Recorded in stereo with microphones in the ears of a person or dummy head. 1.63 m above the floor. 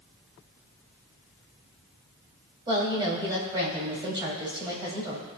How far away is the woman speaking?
About 4.5 m.